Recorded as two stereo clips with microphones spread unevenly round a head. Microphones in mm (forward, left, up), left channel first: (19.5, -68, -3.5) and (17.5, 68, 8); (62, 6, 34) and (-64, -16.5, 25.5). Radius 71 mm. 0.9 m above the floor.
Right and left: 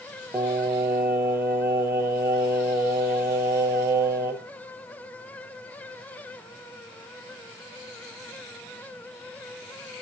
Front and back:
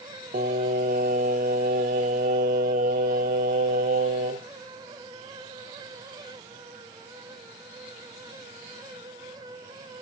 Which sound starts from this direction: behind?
Singing, at 0.3 s.